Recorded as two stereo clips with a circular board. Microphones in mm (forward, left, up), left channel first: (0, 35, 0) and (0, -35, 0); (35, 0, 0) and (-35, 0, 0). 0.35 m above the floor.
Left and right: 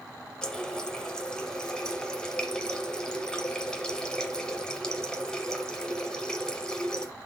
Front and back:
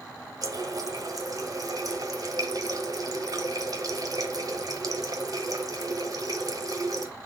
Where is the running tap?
170° left, 1.0 m.